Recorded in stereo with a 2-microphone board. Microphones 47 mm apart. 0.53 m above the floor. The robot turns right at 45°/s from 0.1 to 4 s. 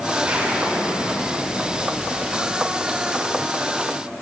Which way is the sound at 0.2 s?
155° right.